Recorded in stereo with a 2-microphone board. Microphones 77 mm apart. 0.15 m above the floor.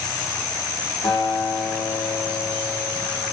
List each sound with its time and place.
1.0 s a guitar: 70° left (ahead or behind), 5 m